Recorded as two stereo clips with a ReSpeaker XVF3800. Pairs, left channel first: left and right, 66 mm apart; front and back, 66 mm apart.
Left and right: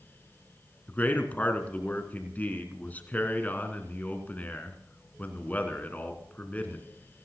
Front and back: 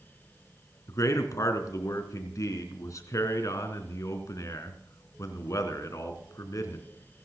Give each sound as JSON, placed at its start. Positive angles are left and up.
{"t": 0.9, "sound": "a man speaking", "azimuth_deg": 25, "distance_m": 2.5}